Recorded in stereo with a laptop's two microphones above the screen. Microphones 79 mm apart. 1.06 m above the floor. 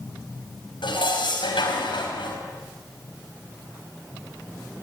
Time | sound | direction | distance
0.8 | dishes clattering | 85° left | 4.5 m